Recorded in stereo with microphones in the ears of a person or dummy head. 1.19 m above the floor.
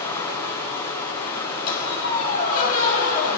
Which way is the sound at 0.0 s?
25° left (ahead or behind).